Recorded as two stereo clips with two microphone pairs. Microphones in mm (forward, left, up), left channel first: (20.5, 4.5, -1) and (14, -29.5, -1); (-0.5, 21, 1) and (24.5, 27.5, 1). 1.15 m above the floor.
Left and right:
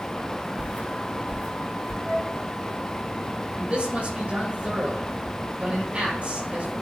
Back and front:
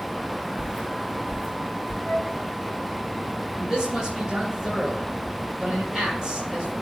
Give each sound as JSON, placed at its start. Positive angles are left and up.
{"t": 0.6, "sound": "footsteps", "azimuth_deg": -60, "distance_m": 4.5}
{"t": 2.0, "sound": "a flute", "azimuth_deg": -15, "distance_m": 4.5}
{"t": 3.6, "sound": "a man speaking", "azimuth_deg": -50, "distance_m": 4.5}